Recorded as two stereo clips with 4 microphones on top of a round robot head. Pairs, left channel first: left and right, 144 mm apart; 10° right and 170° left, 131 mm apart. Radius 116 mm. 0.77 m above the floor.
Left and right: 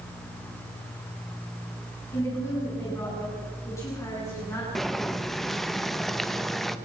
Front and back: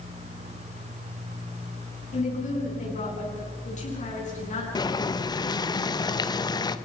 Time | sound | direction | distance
2.1 | a woman speaking | 15° left | 9.5 m
4.8 | boiling | 5° left | 1.2 m